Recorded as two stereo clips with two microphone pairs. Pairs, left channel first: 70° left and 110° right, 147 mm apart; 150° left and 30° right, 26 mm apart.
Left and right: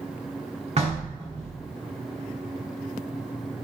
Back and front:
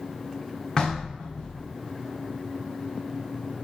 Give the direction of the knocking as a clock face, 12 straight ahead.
5 o'clock.